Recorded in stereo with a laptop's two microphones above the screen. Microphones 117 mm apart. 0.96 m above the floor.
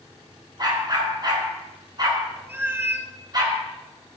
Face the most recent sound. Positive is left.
turn(degrees=-20)  # may be behind; listen again after turning